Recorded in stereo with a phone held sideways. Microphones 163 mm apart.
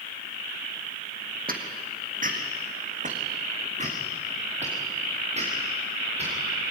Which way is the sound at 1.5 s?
60° right (ahead or behind).